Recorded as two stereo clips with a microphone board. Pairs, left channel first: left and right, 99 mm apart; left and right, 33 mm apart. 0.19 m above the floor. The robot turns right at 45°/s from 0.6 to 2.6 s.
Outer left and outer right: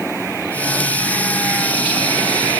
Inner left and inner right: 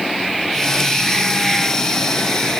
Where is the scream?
I don't hear a scream.